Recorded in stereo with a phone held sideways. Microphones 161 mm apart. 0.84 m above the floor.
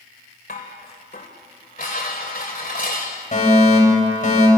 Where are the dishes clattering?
60° left (ahead or behind), 2.5 m.